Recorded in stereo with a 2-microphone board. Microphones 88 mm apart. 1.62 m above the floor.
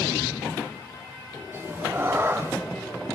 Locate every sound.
1.5 s a cat meowing: 25° right (ahead or behind), 1.1 m